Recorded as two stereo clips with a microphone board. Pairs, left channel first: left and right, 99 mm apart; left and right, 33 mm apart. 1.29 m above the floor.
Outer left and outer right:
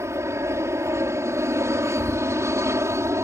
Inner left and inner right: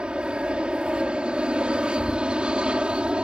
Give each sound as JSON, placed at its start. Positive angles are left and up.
{"t": 0.0, "sound": "an aircraft", "side_deg": -30}